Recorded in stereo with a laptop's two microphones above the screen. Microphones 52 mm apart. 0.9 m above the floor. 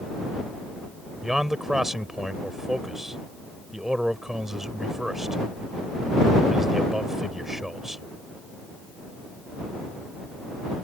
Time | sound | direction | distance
1.2 | a man speaking | 5° right (ahead or behind) | ?